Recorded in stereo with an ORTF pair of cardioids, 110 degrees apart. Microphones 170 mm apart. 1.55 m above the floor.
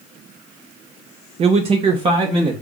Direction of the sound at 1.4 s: 40° right.